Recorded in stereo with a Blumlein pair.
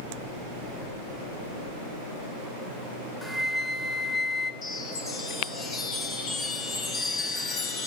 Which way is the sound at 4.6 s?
30° left.